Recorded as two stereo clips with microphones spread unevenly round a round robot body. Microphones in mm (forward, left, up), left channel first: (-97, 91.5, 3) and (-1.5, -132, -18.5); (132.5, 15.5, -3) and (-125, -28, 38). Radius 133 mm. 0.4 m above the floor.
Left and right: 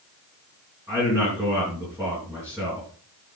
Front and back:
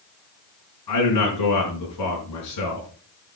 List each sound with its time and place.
0.9 s a man speaking: 15° left, 4 m